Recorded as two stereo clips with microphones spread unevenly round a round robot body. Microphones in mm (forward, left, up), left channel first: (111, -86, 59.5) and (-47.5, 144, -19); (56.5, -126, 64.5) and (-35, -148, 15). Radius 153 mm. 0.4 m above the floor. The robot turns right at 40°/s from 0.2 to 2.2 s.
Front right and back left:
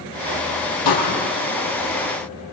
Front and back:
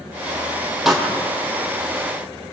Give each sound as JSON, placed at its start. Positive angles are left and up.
{"t": 0.8, "sound": "a pop", "azimuth_deg": -80, "distance_m": 5.0}